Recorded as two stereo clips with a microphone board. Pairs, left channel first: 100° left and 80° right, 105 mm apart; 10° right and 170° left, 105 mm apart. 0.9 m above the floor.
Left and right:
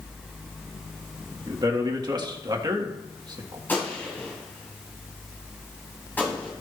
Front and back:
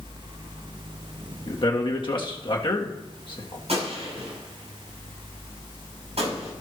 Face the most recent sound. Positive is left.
turn(degrees=175)